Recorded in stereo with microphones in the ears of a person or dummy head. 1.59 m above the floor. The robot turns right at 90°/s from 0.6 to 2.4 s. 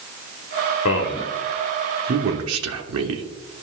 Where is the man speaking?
70° left (ahead or behind), 1.0 m; by 3.2 s 70° right (ahead or behind), 1.0 m.